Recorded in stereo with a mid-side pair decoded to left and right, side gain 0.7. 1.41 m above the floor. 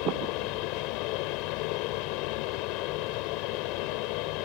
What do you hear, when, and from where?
0.0 s a fan: 70° left